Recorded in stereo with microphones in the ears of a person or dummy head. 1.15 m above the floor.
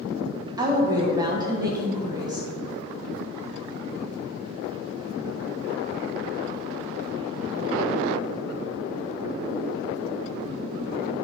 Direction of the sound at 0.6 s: 20° right (ahead or behind).